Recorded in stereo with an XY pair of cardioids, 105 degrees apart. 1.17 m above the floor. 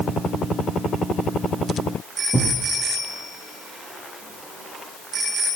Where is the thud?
20° left, 5.5 m.